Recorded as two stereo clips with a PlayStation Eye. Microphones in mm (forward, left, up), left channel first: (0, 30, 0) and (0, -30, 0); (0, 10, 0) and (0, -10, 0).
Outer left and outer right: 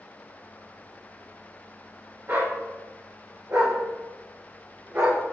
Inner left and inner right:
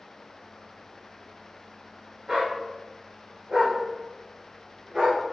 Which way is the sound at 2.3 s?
35° right (ahead or behind).